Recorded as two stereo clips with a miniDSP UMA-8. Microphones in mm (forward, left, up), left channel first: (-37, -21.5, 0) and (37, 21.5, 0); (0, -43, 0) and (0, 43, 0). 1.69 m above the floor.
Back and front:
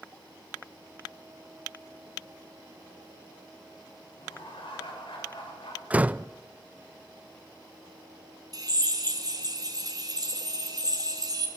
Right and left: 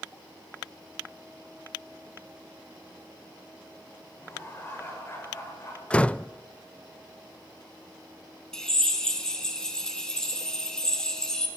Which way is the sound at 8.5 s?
10° right.